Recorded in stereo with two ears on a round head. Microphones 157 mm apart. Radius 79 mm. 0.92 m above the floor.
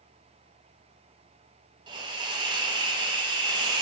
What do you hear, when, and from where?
1.9 s a hiss: 25° right (ahead or behind), 0.7 m